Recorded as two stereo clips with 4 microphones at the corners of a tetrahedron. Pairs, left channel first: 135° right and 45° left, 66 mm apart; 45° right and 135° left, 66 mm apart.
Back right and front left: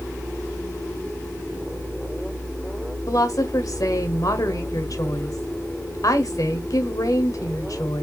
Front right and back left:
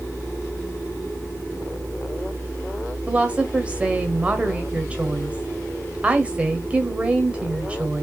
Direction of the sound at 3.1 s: 155° right.